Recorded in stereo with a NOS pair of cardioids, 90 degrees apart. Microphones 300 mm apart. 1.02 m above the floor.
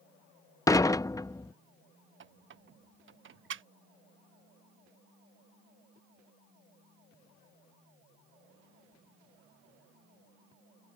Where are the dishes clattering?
10° left.